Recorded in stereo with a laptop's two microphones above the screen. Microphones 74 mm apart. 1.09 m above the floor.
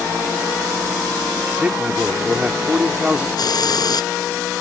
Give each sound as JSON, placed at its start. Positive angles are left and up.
{"t": 1.6, "sound": "a man speaking", "side_deg": -15}
{"t": 3.4, "sound": "a hiss", "side_deg": 65}